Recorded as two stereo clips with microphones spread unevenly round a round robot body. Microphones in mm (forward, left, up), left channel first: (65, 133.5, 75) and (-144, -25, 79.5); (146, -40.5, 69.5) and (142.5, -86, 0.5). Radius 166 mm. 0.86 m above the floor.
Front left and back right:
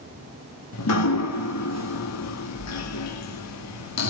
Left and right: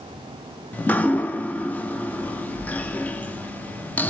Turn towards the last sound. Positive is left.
turn(degrees=10)